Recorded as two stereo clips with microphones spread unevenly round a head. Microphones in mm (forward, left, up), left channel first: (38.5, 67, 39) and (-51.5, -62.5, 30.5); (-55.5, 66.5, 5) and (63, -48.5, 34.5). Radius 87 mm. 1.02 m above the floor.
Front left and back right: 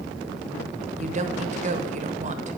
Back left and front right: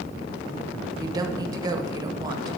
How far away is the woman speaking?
About 1.0 m.